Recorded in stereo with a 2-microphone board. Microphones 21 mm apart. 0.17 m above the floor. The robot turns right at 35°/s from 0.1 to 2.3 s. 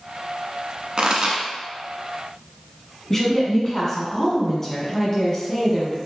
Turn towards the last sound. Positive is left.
turn(degrees=20)  # may be behind; listen again after turning